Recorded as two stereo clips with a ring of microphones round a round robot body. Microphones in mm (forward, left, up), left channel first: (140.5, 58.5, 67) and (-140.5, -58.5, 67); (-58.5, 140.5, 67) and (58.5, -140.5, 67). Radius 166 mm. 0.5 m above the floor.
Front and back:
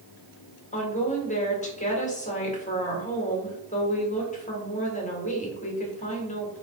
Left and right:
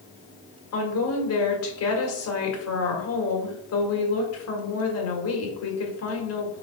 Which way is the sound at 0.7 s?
85° left.